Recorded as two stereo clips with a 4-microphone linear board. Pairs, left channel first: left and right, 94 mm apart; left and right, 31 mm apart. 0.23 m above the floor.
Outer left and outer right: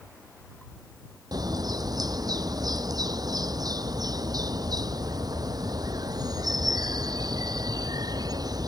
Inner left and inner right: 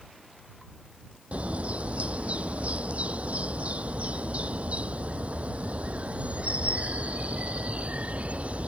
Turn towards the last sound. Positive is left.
turn(degrees=-45)  # may be behind; listen again after turning